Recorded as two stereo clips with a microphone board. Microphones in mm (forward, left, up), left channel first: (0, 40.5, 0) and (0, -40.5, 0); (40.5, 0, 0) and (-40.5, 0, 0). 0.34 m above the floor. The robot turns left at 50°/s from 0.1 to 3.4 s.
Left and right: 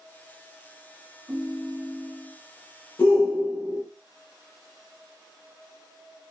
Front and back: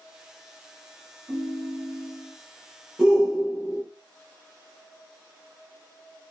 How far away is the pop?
I don't hear a pop.